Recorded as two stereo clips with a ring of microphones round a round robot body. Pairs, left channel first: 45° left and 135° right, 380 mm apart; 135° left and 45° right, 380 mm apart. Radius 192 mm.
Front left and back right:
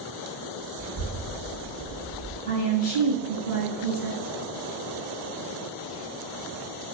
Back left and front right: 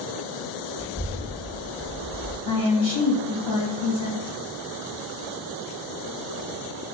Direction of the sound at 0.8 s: 70° left.